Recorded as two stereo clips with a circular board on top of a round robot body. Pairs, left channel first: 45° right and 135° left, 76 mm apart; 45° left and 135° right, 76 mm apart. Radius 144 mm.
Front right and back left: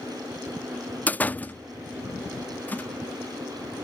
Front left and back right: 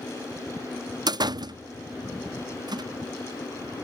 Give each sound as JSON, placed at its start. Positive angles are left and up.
{"t": 1.1, "sound": "a door slam", "azimuth_deg": -115}